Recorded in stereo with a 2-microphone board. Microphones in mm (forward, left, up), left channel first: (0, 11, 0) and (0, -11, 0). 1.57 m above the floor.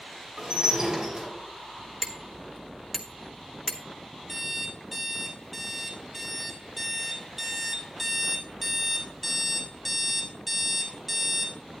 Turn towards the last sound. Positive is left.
turn(degrees=-15)  # may be behind; listen again after turning